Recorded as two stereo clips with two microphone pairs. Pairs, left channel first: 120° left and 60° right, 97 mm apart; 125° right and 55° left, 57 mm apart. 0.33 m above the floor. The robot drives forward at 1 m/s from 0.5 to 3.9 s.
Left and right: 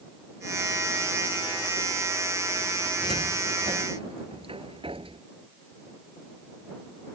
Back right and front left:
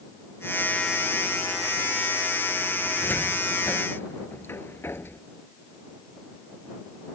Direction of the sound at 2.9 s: 70° right.